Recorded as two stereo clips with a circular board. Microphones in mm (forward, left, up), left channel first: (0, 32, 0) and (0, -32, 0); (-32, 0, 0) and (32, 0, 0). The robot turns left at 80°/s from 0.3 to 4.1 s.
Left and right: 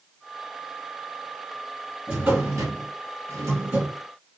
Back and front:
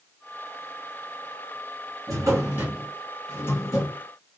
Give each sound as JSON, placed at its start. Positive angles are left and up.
{"t": 2.1, "sound": "a drawer", "azimuth_deg": -15, "distance_m": 1.7}